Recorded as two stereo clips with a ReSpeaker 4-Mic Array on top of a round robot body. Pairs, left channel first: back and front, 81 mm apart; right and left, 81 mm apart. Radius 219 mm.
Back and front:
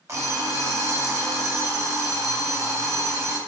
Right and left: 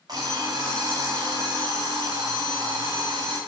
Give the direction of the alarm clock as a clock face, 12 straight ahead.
10 o'clock.